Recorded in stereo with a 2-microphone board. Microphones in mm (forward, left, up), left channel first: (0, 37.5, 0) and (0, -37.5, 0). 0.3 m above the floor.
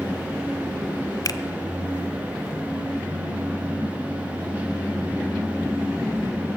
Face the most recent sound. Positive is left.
turn(degrees=55)  # may be behind; listen again after turning